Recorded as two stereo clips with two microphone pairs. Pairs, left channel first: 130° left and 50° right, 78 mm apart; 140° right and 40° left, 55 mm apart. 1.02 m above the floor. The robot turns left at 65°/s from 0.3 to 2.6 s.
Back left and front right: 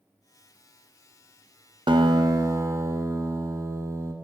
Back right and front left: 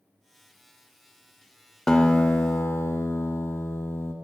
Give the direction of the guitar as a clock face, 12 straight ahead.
2 o'clock.